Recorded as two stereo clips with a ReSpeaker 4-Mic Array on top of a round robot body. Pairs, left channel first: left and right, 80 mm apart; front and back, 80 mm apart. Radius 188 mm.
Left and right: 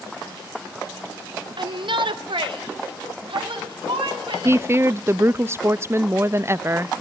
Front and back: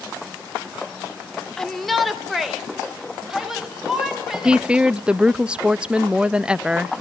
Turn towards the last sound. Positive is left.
turn(degrees=-110)